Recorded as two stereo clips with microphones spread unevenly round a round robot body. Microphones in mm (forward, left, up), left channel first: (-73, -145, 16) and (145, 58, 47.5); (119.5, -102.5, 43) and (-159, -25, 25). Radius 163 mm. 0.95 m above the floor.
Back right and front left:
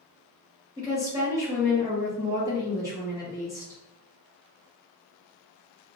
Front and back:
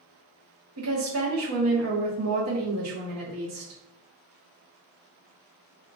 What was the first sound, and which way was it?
A woman speaking, 125° left.